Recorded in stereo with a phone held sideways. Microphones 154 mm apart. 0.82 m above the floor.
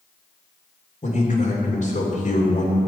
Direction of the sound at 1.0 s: 50° left (ahead or behind).